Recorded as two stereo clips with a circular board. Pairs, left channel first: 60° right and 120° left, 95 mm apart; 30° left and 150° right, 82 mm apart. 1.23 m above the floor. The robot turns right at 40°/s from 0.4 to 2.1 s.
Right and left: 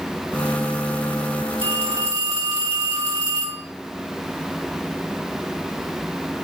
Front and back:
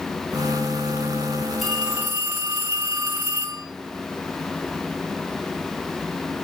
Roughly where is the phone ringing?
Behind left.